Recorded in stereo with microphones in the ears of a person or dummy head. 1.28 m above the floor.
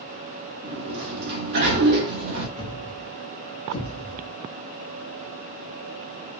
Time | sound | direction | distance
0.6 | a sliding door | 50° right (ahead or behind) | 0.9 m
2.6 | a thud | 30° left (ahead or behind) | 0.8 m